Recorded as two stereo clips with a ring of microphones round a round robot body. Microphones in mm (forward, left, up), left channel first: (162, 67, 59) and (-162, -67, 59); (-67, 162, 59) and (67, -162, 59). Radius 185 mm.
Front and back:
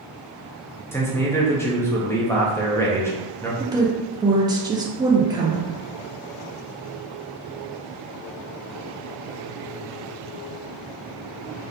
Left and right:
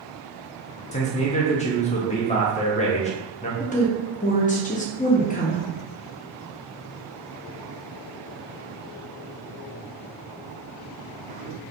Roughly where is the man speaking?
Left.